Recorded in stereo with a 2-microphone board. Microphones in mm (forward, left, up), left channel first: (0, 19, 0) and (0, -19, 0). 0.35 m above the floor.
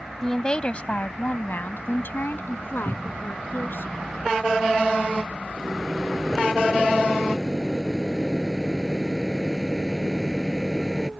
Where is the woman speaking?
15° left (ahead or behind); by 3.9 s 70° left (ahead or behind).